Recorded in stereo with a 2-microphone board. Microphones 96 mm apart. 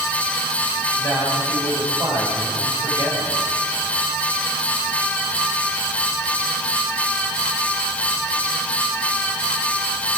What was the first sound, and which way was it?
A man speaking, 65° left (ahead or behind).